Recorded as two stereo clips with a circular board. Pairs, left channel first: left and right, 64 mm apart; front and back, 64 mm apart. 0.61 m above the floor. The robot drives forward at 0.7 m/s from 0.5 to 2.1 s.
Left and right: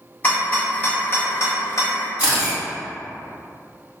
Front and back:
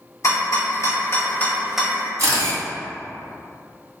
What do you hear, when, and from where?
0.2 s a rattle: 25° left, 1.0 m; by 2.1 s 125° left, 0.5 m
2.2 s a camera shutter: 160° right, 1.6 m